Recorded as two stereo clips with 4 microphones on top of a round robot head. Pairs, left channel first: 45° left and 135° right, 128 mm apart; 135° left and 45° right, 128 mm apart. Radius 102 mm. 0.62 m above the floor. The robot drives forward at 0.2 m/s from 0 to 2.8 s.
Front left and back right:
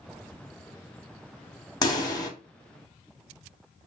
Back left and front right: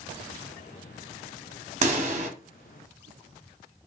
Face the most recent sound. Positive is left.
turn(degrees=-20)